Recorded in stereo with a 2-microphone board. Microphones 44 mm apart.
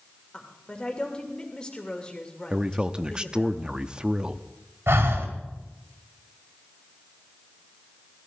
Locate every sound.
0.3 s a woman speaking: 20° left (ahead or behind), 2.5 m
2.5 s a man speaking: 20° right (ahead or behind), 0.6 m
4.9 s breathing: 70° right (ahead or behind), 1.9 m